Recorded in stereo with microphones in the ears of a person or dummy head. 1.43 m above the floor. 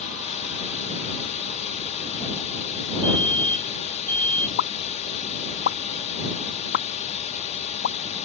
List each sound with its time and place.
0.0 s a drone: 40° left (ahead or behind)
3.0 s a fire alarm: 10° left (ahead or behind)
4.6 s a pop: 65° left (ahead or behind)